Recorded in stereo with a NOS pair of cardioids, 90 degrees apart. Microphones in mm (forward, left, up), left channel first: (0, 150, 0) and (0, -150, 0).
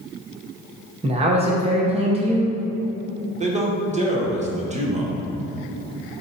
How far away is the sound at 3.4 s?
About 1.0 m.